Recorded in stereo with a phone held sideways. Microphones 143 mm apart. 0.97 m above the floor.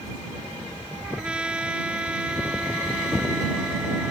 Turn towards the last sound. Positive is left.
turn(degrees=-10)  # may be behind; listen again after turning